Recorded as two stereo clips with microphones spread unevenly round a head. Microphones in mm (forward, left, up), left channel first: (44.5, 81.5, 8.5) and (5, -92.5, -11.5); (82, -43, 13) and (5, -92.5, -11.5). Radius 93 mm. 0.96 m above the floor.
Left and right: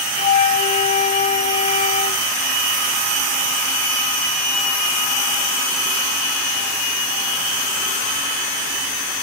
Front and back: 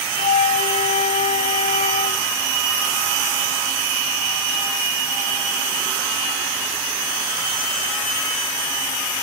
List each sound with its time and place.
0.2 s a flute: 20° left, 0.6 m